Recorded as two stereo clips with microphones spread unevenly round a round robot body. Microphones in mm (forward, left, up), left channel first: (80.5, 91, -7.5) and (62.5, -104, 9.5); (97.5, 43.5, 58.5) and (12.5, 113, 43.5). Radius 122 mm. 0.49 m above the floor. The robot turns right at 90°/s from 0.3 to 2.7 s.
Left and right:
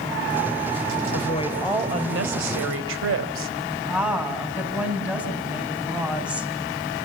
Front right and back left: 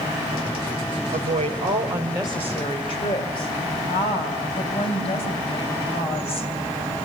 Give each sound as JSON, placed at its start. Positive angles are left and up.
{"t": 1.1, "sound": "a woman speaking", "azimuth_deg": 125, "distance_m": 2.5}
{"t": 3.8, "sound": "a woman speaking", "azimuth_deg": -10, "distance_m": 4.5}